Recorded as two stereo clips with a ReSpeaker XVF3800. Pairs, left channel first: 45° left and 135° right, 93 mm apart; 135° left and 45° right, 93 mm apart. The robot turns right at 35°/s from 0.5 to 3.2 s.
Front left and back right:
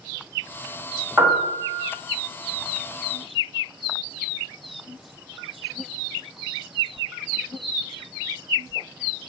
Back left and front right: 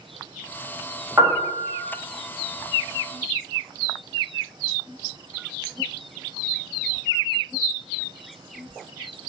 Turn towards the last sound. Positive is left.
turn(degrees=-10)